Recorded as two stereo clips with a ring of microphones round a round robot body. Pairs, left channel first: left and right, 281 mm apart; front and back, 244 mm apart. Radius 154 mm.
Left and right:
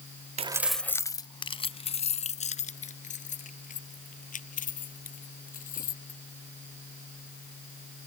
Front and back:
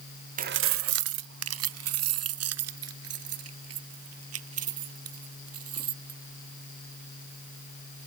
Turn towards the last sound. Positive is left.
turn(degrees=155)